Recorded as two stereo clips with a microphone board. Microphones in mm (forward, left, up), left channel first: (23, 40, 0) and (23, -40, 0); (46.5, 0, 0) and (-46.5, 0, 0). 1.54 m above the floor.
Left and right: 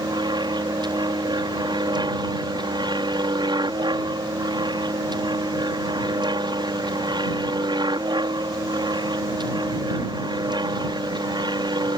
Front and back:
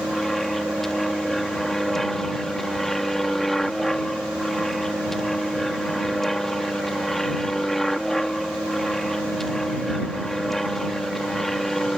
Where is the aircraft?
85° right.